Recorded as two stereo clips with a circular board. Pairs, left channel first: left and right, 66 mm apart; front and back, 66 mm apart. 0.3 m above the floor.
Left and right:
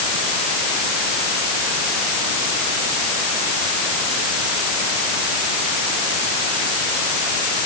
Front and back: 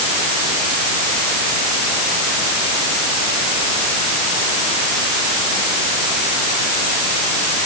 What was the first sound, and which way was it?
Only background noise.